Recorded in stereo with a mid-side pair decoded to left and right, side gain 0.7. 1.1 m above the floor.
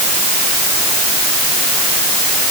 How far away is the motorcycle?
I don't hear a motorcycle.